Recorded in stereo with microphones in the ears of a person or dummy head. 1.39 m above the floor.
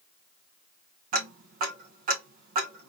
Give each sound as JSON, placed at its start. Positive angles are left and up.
{"t": 1.1, "sound": "ticking", "side_deg": -45, "distance_m": 0.9}